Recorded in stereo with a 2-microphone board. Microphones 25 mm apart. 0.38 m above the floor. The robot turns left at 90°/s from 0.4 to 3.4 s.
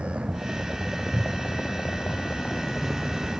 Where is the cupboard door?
30° right (ahead or behind); by 1.7 s 15° left (ahead or behind).